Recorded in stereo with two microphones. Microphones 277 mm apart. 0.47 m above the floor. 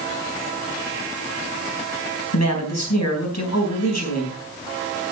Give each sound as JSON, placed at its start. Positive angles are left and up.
{"t": 2.3, "sound": "a man speaking", "side_deg": 70, "distance_m": 4.0}